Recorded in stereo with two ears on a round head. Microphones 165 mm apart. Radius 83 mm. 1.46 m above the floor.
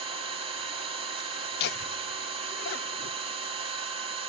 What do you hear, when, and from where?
0.0 s an engine running: 30° right (ahead or behind), 4.5 m
1.6 s laughter: 60° left (ahead or behind), 0.5 m